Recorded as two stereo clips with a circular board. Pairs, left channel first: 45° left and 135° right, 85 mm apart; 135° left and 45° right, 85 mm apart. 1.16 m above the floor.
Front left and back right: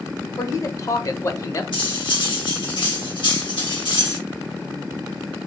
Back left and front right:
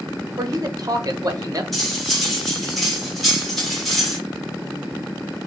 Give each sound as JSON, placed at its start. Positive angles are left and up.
{"t": 0.4, "sound": "a man speaking", "azimuth_deg": 0, "distance_m": 0.9}
{"t": 1.7, "sound": "cutlery clinking", "azimuth_deg": 50, "distance_m": 1.7}